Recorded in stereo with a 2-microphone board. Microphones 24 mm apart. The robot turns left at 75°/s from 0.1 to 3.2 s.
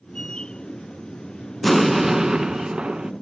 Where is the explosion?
5° left, 0.6 m; by 3.1 s 110° right, 0.6 m.